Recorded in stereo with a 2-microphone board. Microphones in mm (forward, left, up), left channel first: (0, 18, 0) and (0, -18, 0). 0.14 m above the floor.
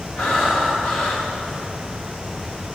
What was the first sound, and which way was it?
Breathing, 45° left (ahead or behind).